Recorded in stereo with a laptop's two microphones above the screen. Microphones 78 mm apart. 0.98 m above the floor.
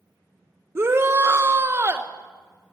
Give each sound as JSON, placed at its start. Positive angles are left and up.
{"t": 0.8, "sound": "a shout", "side_deg": -35, "distance_m": 0.8}